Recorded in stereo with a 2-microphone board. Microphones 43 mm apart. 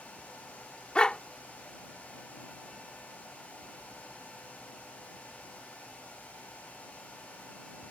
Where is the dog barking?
25° left (ahead or behind).